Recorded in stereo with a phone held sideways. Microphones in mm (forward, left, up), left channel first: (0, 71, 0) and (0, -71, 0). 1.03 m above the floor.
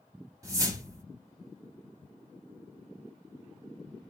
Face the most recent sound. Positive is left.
turn(degrees=-25)  # may be behind; listen again after turning